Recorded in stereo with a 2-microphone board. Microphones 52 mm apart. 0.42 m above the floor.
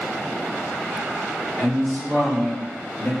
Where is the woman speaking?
20° left (ahead or behind), 1.4 m; by 3.1 s 45° left (ahead or behind), 1.9 m.